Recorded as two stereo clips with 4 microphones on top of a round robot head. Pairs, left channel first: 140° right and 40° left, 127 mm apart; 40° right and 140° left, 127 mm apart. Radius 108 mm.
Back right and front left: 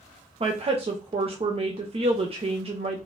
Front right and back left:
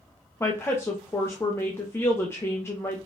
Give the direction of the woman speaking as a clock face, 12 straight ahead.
11 o'clock.